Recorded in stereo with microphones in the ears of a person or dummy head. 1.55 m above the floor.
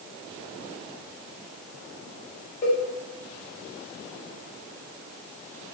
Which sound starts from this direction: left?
A cowbell, at 2.6 s.